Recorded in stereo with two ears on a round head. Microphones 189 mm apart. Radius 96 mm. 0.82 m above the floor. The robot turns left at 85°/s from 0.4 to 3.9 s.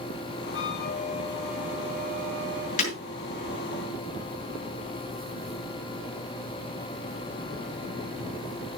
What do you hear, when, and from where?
0.5 s a flute: 80° left, 1.9 m; by 2.7 s 105° right, 1.9 m
2.8 s breaking glass: 35° left (ahead or behind), 5.5 m; by 3.0 s 20° left (ahead or behind), 5.5 m